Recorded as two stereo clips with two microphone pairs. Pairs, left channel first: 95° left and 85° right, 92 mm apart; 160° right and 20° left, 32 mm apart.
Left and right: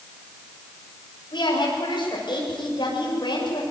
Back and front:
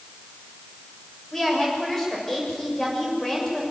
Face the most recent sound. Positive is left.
turn(degrees=125)